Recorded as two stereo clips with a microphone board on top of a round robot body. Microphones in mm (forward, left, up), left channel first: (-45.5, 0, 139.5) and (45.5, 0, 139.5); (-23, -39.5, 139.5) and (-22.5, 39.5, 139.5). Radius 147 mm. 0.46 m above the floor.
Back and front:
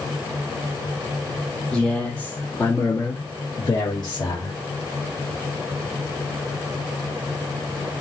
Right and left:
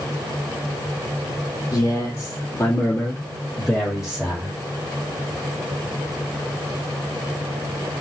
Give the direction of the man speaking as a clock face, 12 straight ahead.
3 o'clock.